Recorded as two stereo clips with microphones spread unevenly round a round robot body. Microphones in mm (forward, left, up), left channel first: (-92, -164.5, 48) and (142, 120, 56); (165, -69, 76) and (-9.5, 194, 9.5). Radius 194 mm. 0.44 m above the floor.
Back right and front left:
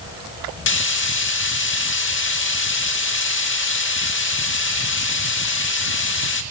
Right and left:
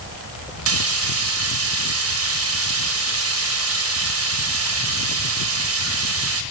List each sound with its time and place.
0.7 s frying: 170° left, 0.7 m